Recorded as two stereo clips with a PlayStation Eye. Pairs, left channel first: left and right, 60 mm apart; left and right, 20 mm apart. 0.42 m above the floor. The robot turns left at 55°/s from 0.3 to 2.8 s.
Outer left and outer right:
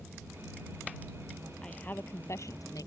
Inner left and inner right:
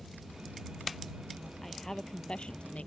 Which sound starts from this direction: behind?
A woman speaking, at 1.6 s.